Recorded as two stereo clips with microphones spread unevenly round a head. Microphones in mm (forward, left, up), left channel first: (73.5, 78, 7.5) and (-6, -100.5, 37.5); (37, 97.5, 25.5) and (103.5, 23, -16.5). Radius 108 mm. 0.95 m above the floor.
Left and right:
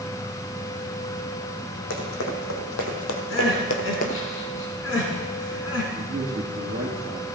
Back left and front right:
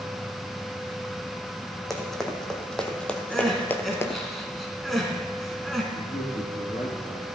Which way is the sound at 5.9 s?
170° right.